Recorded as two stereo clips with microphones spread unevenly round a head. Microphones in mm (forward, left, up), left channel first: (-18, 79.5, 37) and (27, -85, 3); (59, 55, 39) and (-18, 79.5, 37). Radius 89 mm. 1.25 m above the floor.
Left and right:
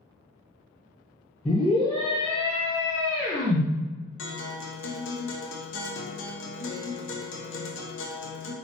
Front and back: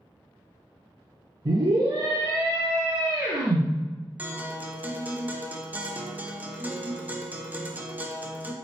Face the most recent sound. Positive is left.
turn(degrees=95)